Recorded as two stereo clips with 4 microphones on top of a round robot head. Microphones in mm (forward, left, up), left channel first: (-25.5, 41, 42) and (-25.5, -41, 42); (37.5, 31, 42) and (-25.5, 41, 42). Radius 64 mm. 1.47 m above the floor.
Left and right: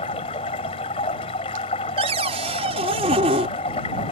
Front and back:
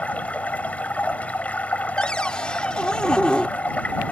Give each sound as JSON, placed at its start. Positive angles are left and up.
{"t": 0.0, "sound": "running water", "azimuth_deg": 60}
{"t": 2.0, "sound": "a cupboard door", "azimuth_deg": -90}